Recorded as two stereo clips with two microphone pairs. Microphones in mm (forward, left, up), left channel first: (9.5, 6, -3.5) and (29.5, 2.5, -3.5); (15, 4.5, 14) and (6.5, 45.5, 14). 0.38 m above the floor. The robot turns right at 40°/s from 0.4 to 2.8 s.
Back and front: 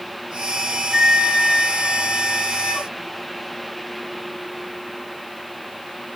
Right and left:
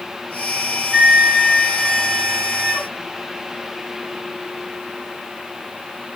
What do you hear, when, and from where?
0.9 s a flute: 40° left, 1.8 m; by 2.9 s 115° left, 1.8 m